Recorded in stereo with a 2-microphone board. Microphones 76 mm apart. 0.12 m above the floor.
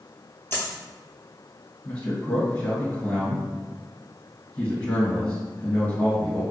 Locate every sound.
0.5 s a dropped coin: 30° left (ahead or behind), 0.7 m
1.9 s a man speaking: 25° left (ahead or behind), 1.6 m